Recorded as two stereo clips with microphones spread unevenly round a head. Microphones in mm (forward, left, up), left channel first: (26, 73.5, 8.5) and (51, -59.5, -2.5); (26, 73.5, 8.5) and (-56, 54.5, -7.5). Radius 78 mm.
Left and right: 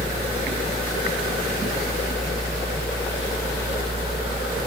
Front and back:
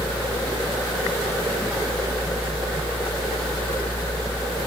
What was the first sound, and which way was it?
Only background noise.